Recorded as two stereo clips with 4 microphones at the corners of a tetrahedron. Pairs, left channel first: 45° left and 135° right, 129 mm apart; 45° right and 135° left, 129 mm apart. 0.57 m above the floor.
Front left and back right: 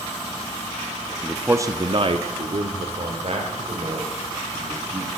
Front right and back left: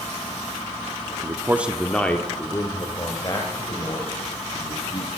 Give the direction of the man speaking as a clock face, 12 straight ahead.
8 o'clock.